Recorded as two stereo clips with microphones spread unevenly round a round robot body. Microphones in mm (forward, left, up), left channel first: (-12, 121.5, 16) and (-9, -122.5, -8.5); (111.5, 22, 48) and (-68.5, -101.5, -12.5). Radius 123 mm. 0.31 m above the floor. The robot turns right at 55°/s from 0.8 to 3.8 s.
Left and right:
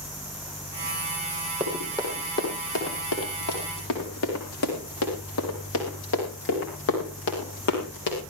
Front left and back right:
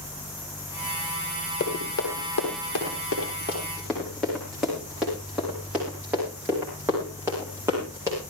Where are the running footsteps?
5° right, 8.5 m; by 8.2 s 135° left, 9 m.